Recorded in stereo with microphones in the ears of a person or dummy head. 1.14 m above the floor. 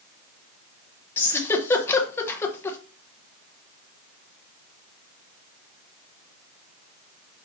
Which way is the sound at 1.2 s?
15° left (ahead or behind).